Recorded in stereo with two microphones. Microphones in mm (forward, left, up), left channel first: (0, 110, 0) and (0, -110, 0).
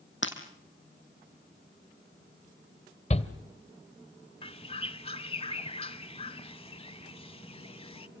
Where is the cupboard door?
No cupboard door in this recording.